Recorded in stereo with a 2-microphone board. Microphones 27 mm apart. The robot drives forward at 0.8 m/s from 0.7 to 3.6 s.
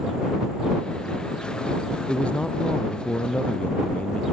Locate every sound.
2.1 s a man speaking: 45° left (ahead or behind); by 4.2 s 50° left (ahead or behind)